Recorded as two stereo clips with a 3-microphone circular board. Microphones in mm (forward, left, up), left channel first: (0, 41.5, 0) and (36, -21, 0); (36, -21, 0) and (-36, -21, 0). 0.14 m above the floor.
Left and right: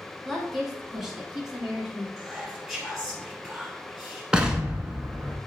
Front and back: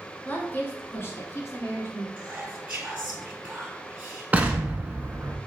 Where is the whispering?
140° right, 1.1 m.